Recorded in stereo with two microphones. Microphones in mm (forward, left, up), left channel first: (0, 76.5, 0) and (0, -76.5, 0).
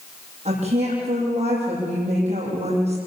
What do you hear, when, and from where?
0.5 s a woman speaking: 55° right (ahead or behind), 8.5 m